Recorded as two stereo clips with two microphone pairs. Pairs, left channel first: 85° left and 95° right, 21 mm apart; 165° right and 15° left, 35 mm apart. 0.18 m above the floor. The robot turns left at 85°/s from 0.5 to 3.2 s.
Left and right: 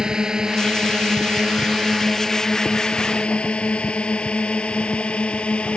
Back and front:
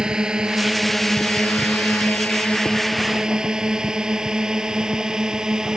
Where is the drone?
45° right; by 5.8 s 90° left.